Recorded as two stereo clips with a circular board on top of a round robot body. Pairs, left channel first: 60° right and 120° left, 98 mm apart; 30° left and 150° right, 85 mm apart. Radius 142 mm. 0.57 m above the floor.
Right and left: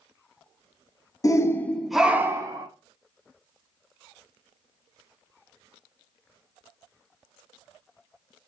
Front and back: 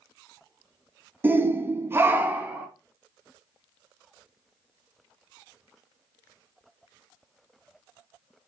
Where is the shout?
95° right, 0.7 m; by 2.7 s 145° left, 0.7 m.